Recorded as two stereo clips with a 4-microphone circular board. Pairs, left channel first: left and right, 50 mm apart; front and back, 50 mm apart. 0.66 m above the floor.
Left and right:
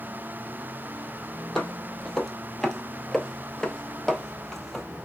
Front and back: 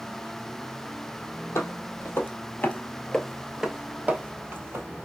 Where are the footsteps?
15° left, 1.1 m; by 4.8 s 175° left, 0.9 m.